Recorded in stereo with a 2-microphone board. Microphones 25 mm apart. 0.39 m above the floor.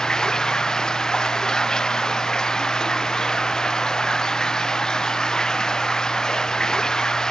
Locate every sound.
0.0 s running water: 25° left (ahead or behind)